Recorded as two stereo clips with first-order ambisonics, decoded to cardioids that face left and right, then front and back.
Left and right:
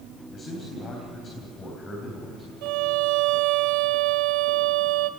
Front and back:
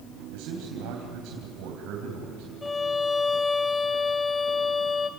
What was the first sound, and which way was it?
A man speaking, 160° left.